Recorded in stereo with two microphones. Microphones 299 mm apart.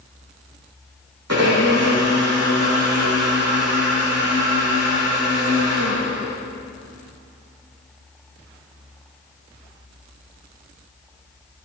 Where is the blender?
60° right (ahead or behind), 5 m.